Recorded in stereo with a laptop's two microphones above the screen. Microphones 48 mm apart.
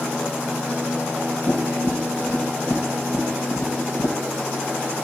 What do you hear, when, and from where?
1.5 s tapping: 70° left (ahead or behind), 1.7 m